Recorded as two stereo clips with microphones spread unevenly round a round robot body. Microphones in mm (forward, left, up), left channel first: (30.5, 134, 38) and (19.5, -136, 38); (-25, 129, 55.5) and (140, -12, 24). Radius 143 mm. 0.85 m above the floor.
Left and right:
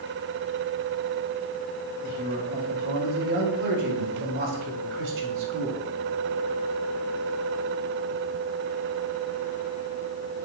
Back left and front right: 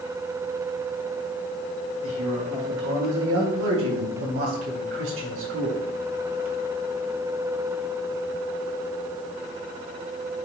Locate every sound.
2.0 s a man speaking: 35° right, 4.5 m; by 5.8 s 60° right, 2.5 m